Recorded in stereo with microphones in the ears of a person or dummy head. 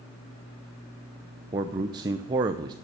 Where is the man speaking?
25° right (ahead or behind), 0.6 m.